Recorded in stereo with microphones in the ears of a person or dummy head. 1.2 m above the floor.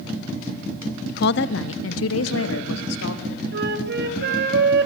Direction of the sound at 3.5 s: 65° right (ahead or behind).